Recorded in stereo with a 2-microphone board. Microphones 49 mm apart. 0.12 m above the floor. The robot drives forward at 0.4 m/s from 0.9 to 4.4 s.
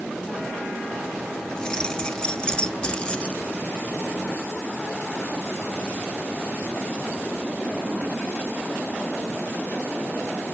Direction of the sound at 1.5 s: 15° left (ahead or behind).